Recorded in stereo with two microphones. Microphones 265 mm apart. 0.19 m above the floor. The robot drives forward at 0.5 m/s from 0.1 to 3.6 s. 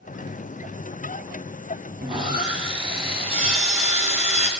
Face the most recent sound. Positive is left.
turn(degrees=-25)  # may be behind; listen again after turning